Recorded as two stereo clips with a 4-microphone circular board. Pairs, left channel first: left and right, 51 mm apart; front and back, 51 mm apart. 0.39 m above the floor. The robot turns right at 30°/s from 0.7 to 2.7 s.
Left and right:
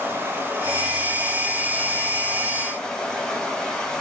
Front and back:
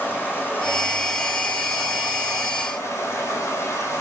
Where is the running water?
50° right, 6 m; by 4.0 s 10° left, 6 m.